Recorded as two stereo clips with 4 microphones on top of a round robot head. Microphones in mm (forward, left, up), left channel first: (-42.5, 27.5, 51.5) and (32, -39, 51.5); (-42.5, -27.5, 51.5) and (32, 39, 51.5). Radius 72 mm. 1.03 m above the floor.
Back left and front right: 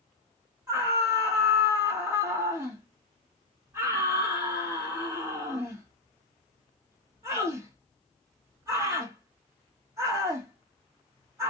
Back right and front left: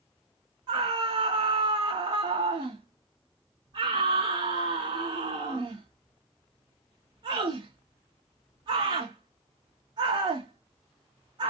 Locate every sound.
0.7 s a scream: 15° left, 1.0 m